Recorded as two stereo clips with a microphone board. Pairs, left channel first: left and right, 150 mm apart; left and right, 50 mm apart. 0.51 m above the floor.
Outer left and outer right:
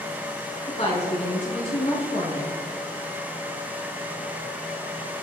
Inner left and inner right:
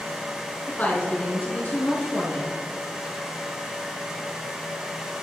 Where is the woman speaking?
45° left (ahead or behind), 6.5 m.